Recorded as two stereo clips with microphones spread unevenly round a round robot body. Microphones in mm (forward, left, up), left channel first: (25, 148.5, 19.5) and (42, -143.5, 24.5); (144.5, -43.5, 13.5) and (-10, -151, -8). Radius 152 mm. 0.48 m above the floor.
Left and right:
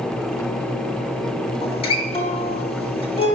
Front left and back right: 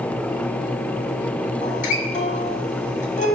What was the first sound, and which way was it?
A guitar, 40° left.